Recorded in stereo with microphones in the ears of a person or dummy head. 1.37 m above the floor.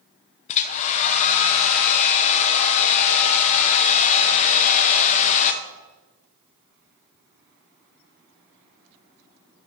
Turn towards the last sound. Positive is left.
turn(degrees=40)  # may be behind; listen again after turning